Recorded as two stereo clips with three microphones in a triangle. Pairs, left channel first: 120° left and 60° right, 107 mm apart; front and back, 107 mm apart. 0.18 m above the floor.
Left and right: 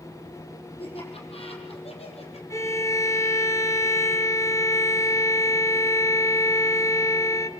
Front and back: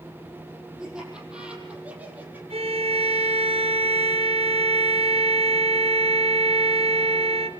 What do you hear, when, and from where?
0.8 s laughter: 95° left, 7.5 m; by 2.4 s 105° left, 6 m
2.5 s a violin: straight behind, 1.6 m